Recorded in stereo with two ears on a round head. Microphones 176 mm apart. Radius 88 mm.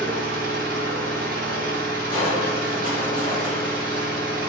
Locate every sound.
0.0 s an engine running: 45° right (ahead or behind), 0.7 m
2.1 s crushing: 25° left (ahead or behind), 0.8 m